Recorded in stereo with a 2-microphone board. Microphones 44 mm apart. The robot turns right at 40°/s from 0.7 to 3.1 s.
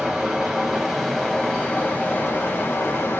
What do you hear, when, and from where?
0.0 s running water: 15° right, 1.1 m; by 3.2 s 85° left, 1.1 m